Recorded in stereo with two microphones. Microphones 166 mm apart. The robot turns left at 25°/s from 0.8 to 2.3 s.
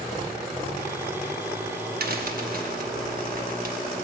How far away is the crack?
About 0.9 m.